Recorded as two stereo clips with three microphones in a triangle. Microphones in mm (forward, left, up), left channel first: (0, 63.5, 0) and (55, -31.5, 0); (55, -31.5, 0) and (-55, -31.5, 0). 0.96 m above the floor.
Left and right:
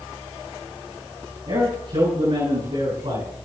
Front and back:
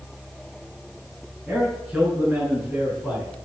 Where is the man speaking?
100° right, 9 m; by 3.3 s 90° right, 9.5 m.